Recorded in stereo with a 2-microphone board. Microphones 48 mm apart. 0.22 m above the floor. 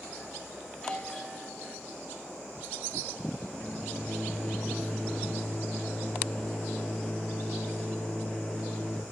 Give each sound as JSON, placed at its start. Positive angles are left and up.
{"t": 0.7, "sound": "a doorbell", "side_deg": 10, "distance_m": 3.5}
{"t": 3.5, "sound": "a microwave", "side_deg": 15, "distance_m": 5.0}